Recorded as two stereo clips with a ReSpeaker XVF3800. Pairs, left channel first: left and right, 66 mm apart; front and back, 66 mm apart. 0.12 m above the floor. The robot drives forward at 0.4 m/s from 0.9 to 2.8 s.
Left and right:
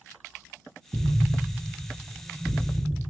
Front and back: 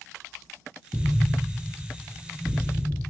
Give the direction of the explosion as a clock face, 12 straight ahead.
3 o'clock.